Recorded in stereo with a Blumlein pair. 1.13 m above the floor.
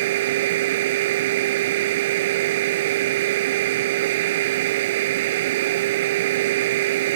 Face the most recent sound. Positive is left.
turn(degrees=-55)